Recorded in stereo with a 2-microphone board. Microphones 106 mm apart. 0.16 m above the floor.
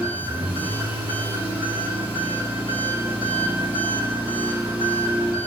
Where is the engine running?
70° right (ahead or behind), 1.6 m.